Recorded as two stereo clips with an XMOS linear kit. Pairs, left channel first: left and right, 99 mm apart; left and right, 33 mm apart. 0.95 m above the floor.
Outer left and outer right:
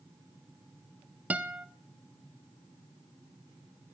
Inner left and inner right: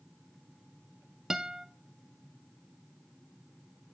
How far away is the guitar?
About 0.6 m.